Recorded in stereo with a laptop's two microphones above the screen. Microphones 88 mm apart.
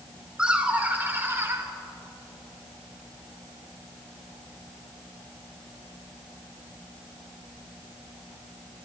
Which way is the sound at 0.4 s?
10° right (ahead or behind).